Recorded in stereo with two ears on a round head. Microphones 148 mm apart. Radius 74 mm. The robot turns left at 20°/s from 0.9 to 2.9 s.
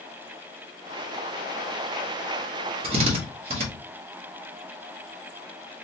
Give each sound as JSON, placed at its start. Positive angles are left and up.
{"t": 2.8, "sound": "a drill", "side_deg": -35, "distance_m": 1.3}